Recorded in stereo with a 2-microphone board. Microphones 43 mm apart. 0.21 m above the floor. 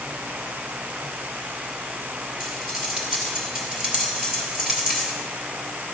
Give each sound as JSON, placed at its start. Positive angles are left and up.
{"t": 2.4, "sound": "cutlery clinking", "side_deg": -15, "distance_m": 2.5}